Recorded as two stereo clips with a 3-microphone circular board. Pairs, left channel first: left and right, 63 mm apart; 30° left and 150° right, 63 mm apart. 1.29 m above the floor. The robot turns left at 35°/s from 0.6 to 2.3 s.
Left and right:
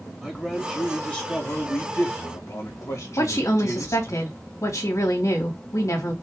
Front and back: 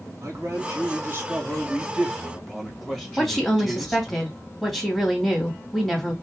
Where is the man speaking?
175° left, 2 m; by 4.2 s 115° left, 2 m.